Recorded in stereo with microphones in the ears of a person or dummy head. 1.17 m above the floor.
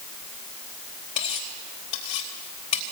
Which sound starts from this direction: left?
Cutlery clinking, at 1.2 s.